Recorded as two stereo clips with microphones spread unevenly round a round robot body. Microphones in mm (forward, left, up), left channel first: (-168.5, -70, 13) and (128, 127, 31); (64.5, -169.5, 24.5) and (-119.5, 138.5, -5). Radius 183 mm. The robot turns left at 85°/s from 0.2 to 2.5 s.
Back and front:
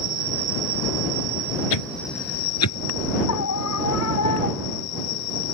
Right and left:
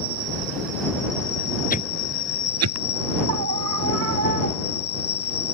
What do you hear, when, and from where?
0.0 s an insect: 95° left; by 5.5 s 100° right
1.7 s a whoosh: 125° right; by 2.8 s 170° left
3.3 s a scream: 170° left